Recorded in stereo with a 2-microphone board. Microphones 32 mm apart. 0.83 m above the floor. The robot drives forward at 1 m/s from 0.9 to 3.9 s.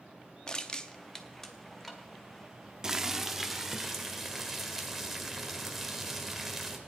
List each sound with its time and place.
0.5 s crushing: 25° left (ahead or behind), 0.6 m; by 2.0 s 10° left (ahead or behind), 1.6 m
2.8 s boiling: 15° right (ahead or behind), 0.5 m; by 6.8 s 5° right (ahead or behind), 1.6 m